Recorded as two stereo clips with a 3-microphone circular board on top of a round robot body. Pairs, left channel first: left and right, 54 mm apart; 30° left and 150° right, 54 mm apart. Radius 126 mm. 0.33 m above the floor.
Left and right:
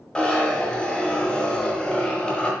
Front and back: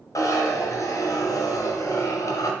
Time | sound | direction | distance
0.1 | a zipper | 15° left | 0.8 m